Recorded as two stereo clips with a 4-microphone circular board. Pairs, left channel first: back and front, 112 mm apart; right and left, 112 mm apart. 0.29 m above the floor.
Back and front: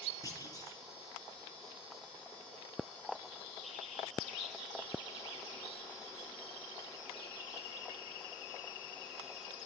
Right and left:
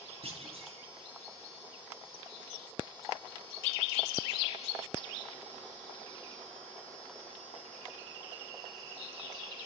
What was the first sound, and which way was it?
A clunk, 125° left.